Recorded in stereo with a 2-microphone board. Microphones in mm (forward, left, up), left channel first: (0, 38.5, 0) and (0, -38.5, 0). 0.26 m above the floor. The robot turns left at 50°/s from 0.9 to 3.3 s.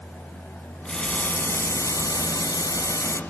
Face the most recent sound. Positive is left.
turn(degrees=50)